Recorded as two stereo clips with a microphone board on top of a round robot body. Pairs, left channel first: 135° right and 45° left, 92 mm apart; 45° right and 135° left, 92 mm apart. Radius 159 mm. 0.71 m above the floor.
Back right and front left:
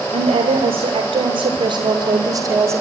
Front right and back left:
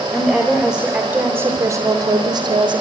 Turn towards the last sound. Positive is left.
turn(degrees=105)